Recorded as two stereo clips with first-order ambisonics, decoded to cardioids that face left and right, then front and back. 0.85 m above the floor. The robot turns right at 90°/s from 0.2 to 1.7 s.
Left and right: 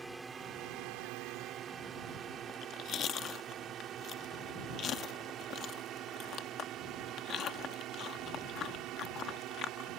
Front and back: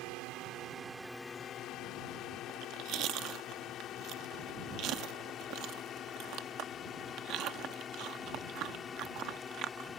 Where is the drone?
165° right; by 10.0 s 65° right.